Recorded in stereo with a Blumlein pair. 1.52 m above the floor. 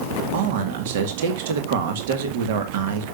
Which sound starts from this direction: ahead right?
A man speaking, at 0.3 s.